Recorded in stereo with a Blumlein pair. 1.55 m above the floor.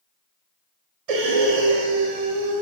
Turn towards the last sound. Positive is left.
turn(degrees=-45)